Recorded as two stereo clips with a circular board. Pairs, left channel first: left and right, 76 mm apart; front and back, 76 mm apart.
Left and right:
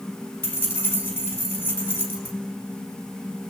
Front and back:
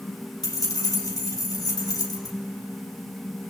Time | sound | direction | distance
0.4 | keys jangling | 25° left | 4 m